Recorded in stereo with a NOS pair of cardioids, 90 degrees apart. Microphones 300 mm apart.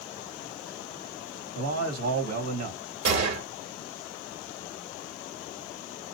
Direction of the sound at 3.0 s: 60° right.